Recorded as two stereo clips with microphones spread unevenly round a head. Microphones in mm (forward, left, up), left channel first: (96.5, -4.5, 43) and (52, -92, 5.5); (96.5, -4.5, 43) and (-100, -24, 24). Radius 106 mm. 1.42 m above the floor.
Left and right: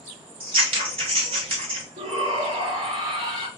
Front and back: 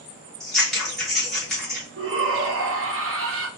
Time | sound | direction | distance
0.4 | scissors | 80° right | 1.1 m
2.0 | a shout | 150° right | 0.9 m